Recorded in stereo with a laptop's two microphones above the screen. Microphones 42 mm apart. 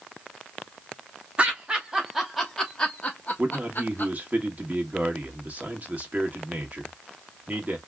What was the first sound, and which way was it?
Laughter, 30° right (ahead or behind).